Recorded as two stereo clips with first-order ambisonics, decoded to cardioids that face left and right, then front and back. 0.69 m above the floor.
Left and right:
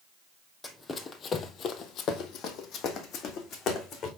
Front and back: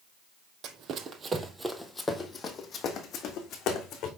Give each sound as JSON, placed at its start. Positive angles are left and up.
{"t": 0.6, "sound": "running footsteps", "azimuth_deg": 165, "distance_m": 0.9}